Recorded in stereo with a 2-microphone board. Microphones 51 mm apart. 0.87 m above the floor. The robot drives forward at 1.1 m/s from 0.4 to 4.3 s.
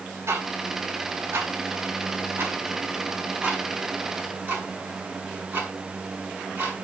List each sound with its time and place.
0.3 s ticking: 65° right (ahead or behind), 4 m; by 6.8 s 30° right (ahead or behind), 7 m